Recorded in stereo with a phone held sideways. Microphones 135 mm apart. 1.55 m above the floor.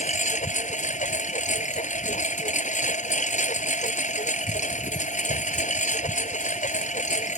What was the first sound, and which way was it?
A lawn mower, 65° left (ahead or behind).